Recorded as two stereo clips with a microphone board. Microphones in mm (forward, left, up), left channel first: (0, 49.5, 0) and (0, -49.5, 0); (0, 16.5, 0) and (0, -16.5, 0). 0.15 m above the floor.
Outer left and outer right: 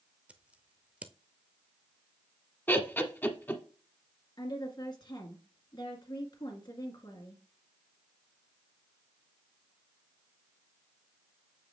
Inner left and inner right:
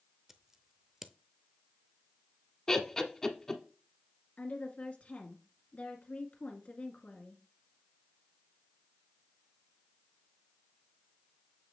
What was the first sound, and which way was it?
Scissors, 15° right (ahead or behind).